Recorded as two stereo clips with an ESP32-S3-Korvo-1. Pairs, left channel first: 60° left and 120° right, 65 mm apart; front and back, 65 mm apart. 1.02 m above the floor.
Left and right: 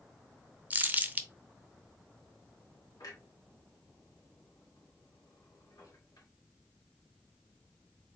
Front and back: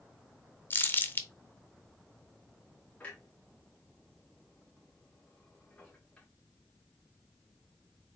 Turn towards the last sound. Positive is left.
turn(degrees=70)